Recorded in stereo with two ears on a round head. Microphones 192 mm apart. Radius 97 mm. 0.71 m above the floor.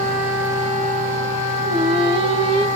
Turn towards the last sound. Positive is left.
turn(degrees=-25)  # may be behind; listen again after turning